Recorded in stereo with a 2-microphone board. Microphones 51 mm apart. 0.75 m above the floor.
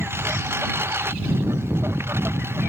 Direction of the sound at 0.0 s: 50° right (ahead or behind).